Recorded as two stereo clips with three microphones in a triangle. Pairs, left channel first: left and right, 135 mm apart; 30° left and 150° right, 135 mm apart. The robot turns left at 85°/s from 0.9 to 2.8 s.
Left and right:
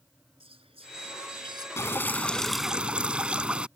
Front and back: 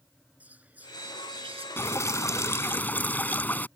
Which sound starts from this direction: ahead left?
Dripping, at 1.8 s.